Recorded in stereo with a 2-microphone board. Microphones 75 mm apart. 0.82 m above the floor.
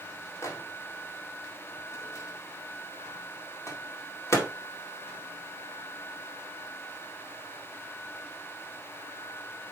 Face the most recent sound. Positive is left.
turn(degrees=40)  # may be behind; listen again after turning